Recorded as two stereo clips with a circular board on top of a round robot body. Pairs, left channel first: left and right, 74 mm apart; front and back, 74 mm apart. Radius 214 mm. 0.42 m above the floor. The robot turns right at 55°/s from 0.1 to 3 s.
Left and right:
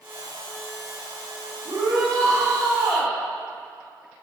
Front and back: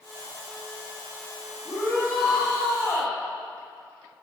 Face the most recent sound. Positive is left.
turn(degrees=0)